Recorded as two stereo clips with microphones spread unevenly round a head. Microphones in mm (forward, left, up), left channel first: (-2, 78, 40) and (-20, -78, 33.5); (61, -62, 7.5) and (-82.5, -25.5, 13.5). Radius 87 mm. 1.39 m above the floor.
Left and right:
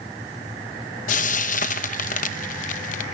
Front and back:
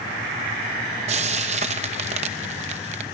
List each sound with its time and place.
1.1 s frying: 115° left, 0.8 m